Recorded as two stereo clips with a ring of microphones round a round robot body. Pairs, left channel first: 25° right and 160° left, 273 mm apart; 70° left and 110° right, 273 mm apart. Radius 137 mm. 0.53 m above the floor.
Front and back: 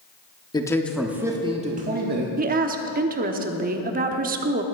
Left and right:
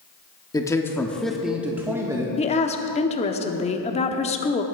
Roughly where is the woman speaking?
Behind left.